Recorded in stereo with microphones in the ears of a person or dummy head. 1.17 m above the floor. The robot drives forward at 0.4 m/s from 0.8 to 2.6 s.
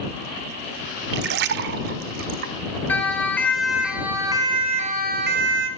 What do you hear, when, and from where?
1.1 s a splash: 60° right (ahead or behind), 1.3 m; by 2.5 s 55° right (ahead or behind), 1.4 m
2.9 s a siren: 10° left (ahead or behind), 3 m; by 5.7 s 65° right (ahead or behind), 2 m